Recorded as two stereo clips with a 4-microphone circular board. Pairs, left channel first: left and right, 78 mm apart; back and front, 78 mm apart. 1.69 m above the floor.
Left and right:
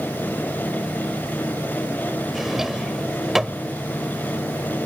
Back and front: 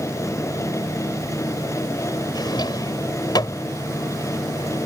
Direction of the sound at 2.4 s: 175° right.